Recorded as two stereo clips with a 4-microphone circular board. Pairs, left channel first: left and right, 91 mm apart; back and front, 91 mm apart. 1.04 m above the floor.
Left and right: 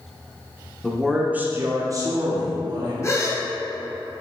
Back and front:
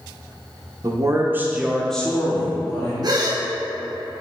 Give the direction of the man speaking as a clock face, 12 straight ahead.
12 o'clock.